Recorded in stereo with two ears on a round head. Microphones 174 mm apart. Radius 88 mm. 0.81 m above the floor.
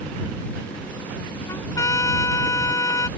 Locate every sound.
1.5 s a trumpet: 15° left (ahead or behind)